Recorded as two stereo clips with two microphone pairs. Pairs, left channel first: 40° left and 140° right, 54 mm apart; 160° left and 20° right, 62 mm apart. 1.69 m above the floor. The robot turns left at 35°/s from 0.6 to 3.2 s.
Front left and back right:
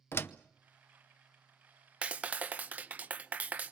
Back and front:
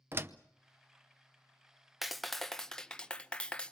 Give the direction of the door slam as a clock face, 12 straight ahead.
11 o'clock.